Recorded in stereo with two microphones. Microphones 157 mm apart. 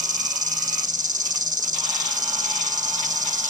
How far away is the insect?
About 0.8 m.